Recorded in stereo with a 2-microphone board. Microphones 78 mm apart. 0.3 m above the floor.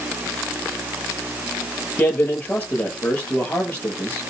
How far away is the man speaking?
About 8 m.